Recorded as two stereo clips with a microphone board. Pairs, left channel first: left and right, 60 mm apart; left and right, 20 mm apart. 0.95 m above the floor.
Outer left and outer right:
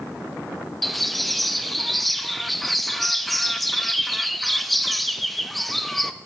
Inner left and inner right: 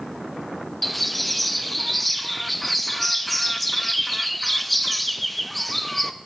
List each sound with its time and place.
0.8 s a bird: centre (ahead or behind), 1.0 m